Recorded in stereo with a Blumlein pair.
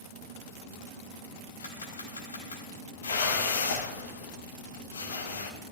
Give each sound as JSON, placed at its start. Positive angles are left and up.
{"t": 1.6, "sound": "a camera shutter", "azimuth_deg": 70, "distance_m": 3.5}
{"t": 3.0, "sound": "a whoosh", "azimuth_deg": 70, "distance_m": 2.0}